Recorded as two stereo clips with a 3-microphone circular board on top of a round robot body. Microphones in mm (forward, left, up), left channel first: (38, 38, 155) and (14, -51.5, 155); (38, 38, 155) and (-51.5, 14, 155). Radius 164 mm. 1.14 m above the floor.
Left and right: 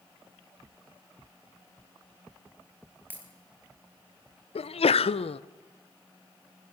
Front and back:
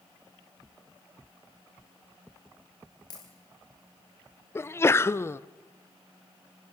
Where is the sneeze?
80° left, 0.7 m.